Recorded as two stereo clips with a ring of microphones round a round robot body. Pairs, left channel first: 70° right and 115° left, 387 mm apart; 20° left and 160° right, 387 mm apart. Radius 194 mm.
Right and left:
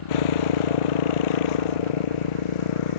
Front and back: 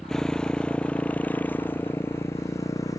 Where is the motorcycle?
65° right; by 3.0 s 60° right.